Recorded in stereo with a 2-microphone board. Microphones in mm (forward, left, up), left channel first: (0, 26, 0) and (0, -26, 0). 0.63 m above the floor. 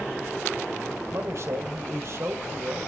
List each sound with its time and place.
1.1 s a man speaking: 60° right (ahead or behind), 3.5 m